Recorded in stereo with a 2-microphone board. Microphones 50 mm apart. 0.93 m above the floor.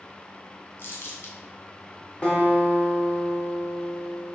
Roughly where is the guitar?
Left.